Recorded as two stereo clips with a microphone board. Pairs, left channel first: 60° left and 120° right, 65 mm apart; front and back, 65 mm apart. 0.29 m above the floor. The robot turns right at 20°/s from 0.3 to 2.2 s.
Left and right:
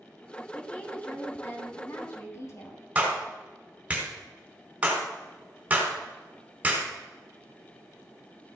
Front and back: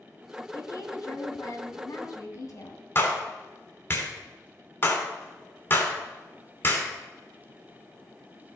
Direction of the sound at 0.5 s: 10° right.